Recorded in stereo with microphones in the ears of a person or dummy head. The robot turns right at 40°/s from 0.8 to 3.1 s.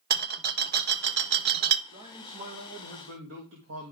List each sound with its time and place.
0.1 s a rattle: 50° right (ahead or behind), 0.7 m
1.9 s a man speaking: 160° right, 1.5 m; by 3.9 s 110° right, 1.5 m